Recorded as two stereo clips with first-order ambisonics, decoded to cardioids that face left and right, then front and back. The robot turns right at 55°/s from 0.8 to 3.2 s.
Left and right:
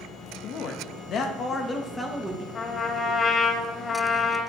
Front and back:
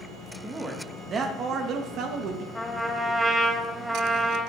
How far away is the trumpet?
About 0.6 m.